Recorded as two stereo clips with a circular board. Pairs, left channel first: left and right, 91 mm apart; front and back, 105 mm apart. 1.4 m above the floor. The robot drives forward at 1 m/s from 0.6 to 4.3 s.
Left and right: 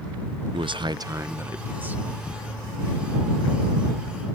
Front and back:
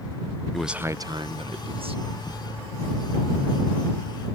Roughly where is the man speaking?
Right.